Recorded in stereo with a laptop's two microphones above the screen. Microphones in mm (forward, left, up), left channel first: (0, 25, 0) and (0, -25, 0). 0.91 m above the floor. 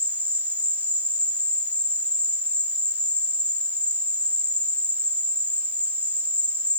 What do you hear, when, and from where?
0.0 s an insect: 35° right (ahead or behind), 0.8 m